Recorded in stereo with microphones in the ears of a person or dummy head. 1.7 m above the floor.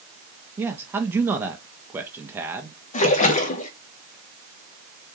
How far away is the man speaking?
About 0.6 m.